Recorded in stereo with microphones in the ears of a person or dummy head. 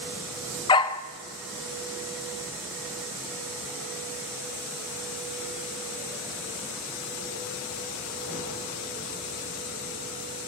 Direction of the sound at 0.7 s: 20° left (ahead or behind).